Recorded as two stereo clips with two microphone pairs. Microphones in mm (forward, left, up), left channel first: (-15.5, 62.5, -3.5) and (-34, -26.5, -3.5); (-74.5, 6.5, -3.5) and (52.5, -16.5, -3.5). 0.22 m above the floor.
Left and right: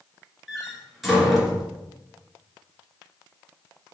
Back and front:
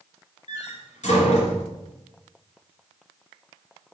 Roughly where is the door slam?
Behind.